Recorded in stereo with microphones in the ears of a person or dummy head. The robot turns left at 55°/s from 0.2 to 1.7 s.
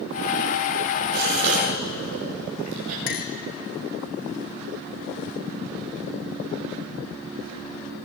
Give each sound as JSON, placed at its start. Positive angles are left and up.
{"t": 1.1, "sound": "a gasp", "side_deg": -55, "distance_m": 8.0}
{"t": 3.1, "sound": "a clink", "side_deg": 55, "distance_m": 2.0}